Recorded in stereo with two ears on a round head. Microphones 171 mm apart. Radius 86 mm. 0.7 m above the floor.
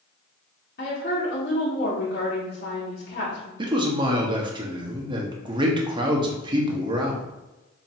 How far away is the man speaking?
About 0.9 m.